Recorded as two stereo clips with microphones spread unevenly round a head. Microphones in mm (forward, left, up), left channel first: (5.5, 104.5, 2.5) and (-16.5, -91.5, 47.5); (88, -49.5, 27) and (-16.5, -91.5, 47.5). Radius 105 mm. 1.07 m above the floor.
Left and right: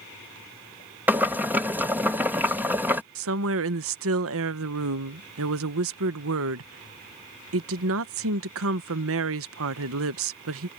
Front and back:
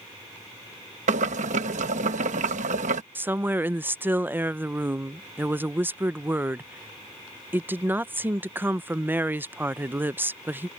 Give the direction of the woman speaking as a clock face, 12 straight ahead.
3 o'clock.